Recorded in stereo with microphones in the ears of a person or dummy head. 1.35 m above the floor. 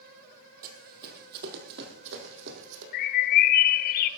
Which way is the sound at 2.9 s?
50° left (ahead or behind).